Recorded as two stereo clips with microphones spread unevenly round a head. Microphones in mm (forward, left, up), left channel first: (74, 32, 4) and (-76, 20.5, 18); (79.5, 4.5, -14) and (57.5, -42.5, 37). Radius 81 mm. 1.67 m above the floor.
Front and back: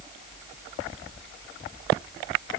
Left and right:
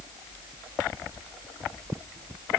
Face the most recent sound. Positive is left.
No sound to turn to.